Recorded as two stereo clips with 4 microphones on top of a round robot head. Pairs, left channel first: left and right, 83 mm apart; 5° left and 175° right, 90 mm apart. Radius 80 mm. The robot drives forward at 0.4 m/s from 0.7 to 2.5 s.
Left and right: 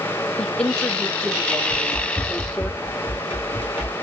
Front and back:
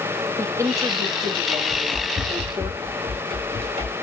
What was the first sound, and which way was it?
A woman speaking, 165° left.